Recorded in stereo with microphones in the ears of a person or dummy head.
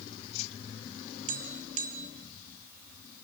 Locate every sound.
1.3 s tapping: 40° right (ahead or behind), 1.8 m